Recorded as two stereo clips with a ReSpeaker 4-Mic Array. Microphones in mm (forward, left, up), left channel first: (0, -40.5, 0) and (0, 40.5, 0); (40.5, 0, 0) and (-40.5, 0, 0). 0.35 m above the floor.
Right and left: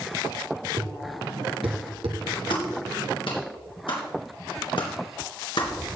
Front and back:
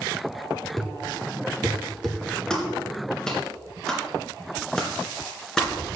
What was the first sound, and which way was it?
A thud, 90° left.